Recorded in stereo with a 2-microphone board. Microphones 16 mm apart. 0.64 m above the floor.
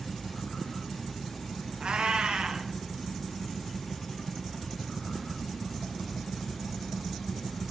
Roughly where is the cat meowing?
Right.